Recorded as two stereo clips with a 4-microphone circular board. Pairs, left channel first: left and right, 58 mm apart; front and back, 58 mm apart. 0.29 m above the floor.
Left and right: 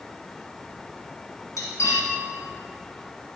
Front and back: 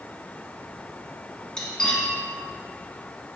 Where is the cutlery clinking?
80° left, 1.8 m.